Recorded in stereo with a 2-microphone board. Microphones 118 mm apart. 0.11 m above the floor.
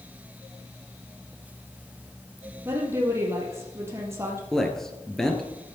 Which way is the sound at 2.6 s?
20° right (ahead or behind).